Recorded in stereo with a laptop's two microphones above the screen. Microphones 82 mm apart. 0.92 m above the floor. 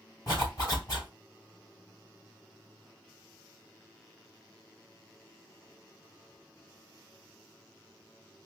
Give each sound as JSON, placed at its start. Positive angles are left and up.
{"t": 0.3, "sound": "a zipper", "side_deg": 45, "distance_m": 3.0}